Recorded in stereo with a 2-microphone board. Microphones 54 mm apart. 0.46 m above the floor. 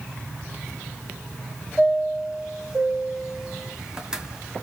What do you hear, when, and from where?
1.8 s a chime: 15° right (ahead or behind), 1.2 m